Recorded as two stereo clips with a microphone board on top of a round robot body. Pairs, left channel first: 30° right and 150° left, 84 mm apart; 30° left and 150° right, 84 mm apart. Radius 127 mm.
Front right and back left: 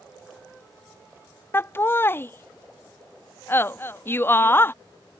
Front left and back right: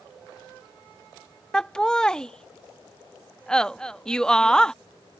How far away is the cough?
No cough in this recording.